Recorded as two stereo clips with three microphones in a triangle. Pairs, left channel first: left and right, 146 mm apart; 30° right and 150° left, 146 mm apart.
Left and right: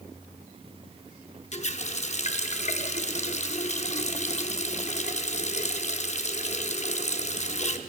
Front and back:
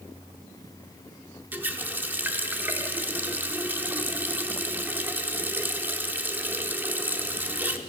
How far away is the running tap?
About 0.6 m.